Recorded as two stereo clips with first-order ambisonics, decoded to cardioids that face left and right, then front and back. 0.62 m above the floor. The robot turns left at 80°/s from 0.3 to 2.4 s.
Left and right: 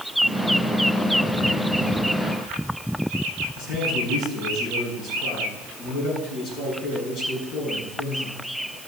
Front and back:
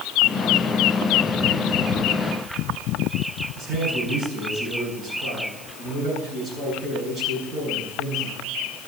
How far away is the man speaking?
About 7.5 m.